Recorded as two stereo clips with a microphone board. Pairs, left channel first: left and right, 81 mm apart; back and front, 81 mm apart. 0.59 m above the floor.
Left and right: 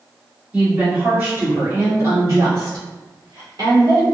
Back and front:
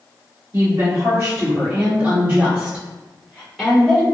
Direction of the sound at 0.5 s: 25° right.